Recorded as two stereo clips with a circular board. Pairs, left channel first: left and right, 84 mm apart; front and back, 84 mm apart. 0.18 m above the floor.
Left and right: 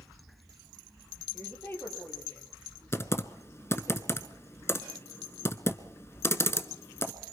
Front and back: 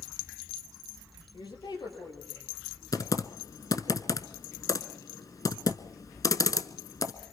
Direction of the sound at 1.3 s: 25° left.